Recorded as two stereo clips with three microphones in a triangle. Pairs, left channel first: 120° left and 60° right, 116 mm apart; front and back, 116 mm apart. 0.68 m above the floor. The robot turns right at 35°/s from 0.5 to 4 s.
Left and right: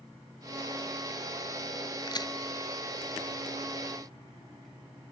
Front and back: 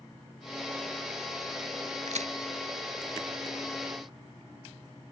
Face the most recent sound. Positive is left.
turn(degrees=-120)